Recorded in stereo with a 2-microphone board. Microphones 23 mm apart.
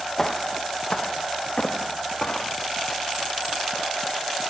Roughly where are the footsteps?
Left.